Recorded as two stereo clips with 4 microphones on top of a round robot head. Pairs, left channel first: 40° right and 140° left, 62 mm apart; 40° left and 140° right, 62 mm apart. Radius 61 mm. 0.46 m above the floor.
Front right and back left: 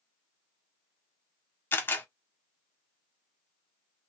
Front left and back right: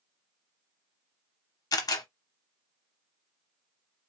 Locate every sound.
1.7 s a camera shutter: 15° left, 0.8 m